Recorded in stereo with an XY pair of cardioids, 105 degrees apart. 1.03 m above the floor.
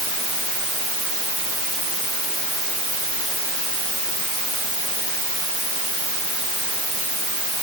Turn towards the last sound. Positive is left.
No sound to turn to.